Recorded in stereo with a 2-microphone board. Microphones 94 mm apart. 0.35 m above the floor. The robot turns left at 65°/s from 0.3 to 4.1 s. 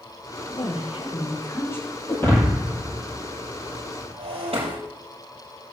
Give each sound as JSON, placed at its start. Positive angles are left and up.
{"t": 0.5, "sound": "a woman speaking", "azimuth_deg": 105, "distance_m": 7.0}
{"t": 2.1, "sound": "breaking glass", "side_deg": 35, "distance_m": 5.5}